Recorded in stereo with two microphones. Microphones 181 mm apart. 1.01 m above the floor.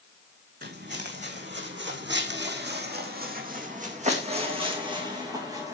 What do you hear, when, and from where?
0.6 s footsteps: 60° right (ahead or behind), 3.5 m; by 5.8 s 15° right (ahead or behind), 4 m